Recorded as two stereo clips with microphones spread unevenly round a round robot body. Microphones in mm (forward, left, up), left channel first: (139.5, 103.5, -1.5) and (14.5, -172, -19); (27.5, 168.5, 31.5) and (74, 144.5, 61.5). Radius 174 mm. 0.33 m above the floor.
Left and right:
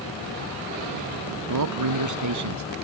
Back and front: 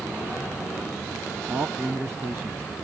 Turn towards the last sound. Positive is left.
turn(degrees=-100)